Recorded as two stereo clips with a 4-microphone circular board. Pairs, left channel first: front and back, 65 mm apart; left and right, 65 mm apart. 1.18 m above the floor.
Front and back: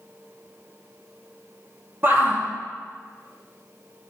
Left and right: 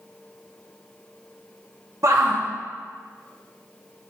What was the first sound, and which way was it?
A shout, 125° right.